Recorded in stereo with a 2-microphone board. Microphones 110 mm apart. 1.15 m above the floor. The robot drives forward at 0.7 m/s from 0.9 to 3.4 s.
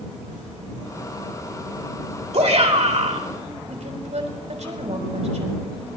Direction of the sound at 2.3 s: 70° right (ahead or behind).